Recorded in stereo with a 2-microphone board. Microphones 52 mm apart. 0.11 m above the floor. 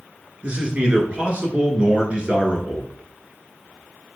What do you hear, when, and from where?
0.4 s a man speaking: 25° right (ahead or behind), 1.2 m